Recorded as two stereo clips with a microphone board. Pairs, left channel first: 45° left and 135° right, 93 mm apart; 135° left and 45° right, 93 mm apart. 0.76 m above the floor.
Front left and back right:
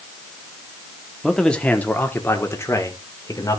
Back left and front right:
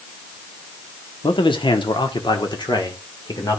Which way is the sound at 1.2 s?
130° left.